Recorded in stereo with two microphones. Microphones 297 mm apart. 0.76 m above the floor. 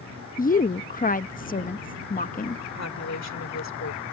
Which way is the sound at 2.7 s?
60° left (ahead or behind).